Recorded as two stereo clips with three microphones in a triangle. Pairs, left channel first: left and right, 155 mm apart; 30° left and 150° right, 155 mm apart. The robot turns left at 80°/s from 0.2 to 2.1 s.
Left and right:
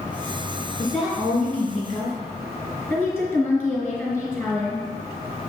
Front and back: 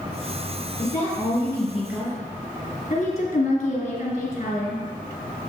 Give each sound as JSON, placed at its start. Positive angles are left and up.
{"t": 0.8, "sound": "a woman speaking", "azimuth_deg": 20, "distance_m": 3.0}
{"t": 2.9, "sound": "a woman speaking", "azimuth_deg": -5, "distance_m": 1.9}